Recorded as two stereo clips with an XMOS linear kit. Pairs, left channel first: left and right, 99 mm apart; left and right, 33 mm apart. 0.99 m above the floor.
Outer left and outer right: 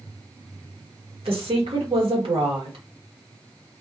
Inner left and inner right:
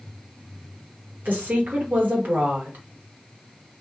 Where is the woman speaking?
70° right (ahead or behind), 1.3 m.